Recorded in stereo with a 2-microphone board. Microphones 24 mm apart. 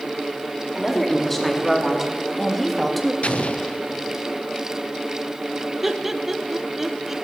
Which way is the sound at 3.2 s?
65° left (ahead or behind).